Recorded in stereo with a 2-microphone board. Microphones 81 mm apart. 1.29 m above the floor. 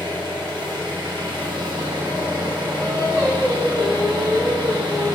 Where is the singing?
75° right (ahead or behind), 0.8 m.